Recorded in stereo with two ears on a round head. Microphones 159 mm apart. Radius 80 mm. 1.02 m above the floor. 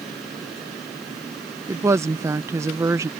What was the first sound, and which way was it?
A woman speaking, 15° right (ahead or behind).